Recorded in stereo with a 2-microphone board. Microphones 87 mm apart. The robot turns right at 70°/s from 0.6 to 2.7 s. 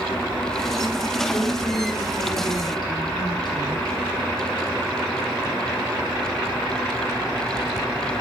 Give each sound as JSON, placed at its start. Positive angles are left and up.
{"t": 1.3, "sound": "a woman speaking", "azimuth_deg": 25, "distance_m": 4.5}